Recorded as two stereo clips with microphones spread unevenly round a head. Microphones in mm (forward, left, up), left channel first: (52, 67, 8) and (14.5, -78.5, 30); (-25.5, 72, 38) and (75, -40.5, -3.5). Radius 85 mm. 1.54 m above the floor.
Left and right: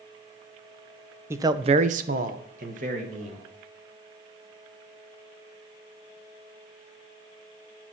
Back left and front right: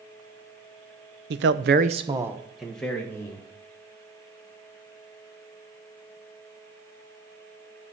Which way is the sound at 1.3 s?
40° right.